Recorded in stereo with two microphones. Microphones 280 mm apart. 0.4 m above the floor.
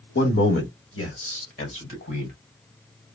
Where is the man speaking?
45° left (ahead or behind), 1.5 m; by 2.4 s 50° left (ahead or behind), 2 m.